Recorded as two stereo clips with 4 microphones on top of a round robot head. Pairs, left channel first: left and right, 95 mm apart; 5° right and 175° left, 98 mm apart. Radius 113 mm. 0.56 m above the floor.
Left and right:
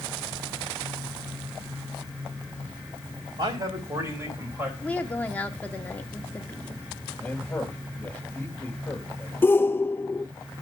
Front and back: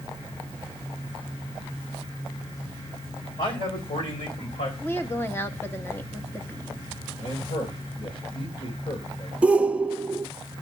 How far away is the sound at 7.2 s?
About 3.5 m.